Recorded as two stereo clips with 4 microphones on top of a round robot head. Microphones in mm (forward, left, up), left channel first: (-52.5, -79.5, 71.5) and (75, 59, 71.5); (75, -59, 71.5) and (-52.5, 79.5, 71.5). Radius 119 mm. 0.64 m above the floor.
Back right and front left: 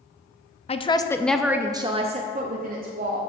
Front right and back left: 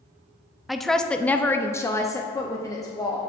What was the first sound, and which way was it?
A woman speaking, 140° right.